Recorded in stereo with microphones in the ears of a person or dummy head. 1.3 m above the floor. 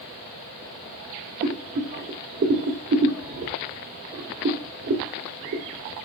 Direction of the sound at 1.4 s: 50° right (ahead or behind).